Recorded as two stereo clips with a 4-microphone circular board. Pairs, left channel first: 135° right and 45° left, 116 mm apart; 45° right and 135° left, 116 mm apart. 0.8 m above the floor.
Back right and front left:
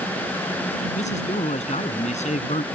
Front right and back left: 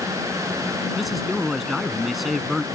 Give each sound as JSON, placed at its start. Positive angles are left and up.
{"t": 0.9, "sound": "a man speaking", "azimuth_deg": -135}